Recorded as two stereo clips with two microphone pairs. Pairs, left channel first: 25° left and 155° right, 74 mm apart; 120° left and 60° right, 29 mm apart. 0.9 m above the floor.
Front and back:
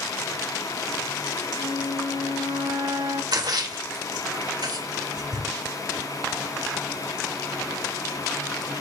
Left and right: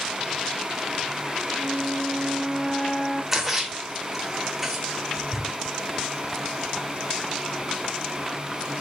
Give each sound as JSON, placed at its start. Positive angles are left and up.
{"t": 1.6, "sound": "a flute", "azimuth_deg": -165, "distance_m": 1.8}
{"t": 3.3, "sound": "a splash", "azimuth_deg": -140, "distance_m": 2.5}